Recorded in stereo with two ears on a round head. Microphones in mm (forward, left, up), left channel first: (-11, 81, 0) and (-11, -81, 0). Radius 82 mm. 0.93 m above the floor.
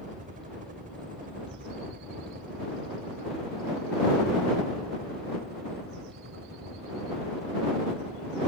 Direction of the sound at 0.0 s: 45° right (ahead or behind).